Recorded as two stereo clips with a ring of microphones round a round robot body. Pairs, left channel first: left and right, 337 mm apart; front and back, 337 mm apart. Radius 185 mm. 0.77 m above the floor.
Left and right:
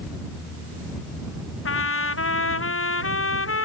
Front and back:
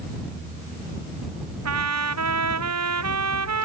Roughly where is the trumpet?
Behind left.